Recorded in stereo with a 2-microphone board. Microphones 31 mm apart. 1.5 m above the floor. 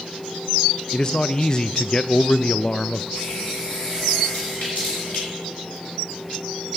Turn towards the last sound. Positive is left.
turn(degrees=50)  # may be behind; listen again after turning